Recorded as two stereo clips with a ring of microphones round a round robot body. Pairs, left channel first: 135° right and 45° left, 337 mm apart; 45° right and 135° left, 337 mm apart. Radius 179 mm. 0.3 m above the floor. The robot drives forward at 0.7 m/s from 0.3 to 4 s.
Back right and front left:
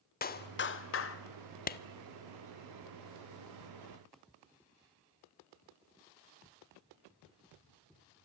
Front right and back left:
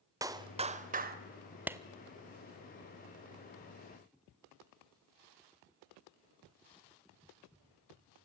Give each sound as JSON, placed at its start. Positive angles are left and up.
{"t": 0.2, "sound": "a clap", "azimuth_deg": -155, "distance_m": 1.0}
{"t": 1.7, "sound": "a clap", "azimuth_deg": -145, "distance_m": 0.7}